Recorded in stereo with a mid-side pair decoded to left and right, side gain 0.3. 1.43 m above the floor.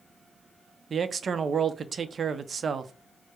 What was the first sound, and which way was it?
A man speaking, 60° right.